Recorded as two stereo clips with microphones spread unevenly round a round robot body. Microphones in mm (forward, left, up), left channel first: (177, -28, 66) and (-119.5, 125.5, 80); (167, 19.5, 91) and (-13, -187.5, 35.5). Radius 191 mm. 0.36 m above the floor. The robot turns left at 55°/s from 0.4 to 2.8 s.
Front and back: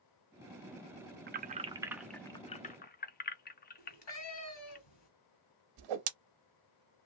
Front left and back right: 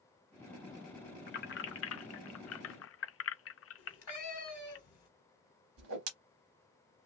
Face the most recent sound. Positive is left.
turn(degrees=180)